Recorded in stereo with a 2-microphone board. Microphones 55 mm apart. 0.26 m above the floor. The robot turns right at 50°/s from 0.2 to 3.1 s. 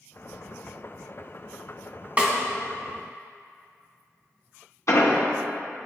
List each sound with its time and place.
2.2 s a snare drum: 25° right (ahead or behind), 1.3 m; by 2.3 s 20° right (ahead or behind), 1.3 m
4.9 s an explosion: 65° left (ahead or behind), 1.0 m